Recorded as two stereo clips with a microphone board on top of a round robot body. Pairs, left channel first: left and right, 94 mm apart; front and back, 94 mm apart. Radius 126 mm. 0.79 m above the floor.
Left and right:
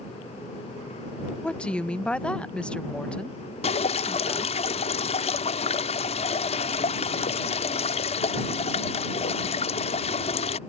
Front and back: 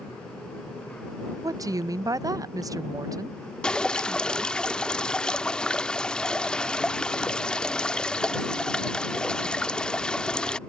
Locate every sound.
1.4 s a woman speaking: 160° left
3.6 s dripping: 80° left